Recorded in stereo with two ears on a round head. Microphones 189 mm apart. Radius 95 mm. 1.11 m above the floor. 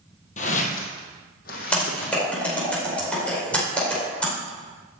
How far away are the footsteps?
About 2.0 m.